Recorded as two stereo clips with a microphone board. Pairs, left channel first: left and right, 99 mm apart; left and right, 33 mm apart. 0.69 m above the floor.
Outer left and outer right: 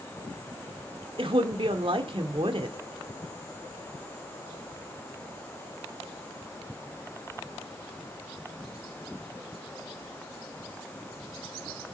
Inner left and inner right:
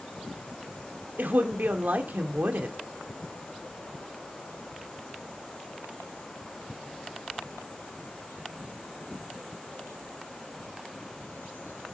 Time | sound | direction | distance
1.2 | a woman speaking | 60° right (ahead or behind) | 1.8 m